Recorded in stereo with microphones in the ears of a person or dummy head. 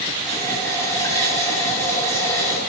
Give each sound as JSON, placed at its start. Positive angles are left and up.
{"t": 0.2, "sound": "a running tap", "side_deg": 10, "distance_m": 1.4}